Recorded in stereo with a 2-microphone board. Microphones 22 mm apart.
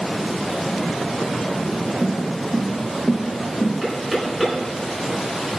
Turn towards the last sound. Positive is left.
turn(degrees=-5)  # may be behind; listen again after turning